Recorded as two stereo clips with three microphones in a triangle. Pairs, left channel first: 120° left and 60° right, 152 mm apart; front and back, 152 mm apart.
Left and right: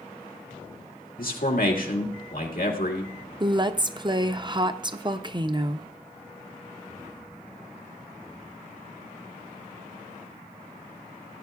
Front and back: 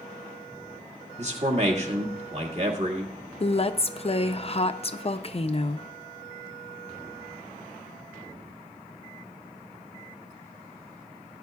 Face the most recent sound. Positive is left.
turn(degrees=-15)